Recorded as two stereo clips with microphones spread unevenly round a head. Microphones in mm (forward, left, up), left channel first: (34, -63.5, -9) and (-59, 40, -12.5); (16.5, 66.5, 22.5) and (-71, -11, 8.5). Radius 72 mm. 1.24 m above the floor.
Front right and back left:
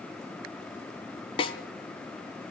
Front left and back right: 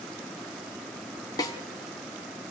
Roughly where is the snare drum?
Ahead.